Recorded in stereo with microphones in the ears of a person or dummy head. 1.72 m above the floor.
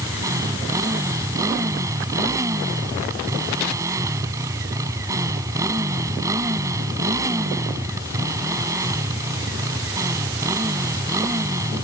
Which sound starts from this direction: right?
A motorcycle, at 0.0 s.